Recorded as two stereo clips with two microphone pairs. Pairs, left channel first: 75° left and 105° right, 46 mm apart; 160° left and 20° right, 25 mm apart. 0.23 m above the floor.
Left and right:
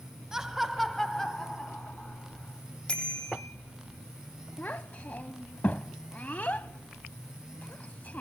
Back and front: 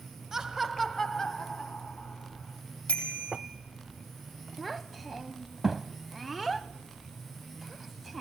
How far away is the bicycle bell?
About 5.5 m.